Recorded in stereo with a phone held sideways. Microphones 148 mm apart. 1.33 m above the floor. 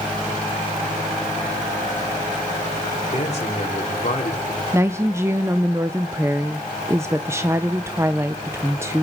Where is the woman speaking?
15° right (ahead or behind), 0.6 m.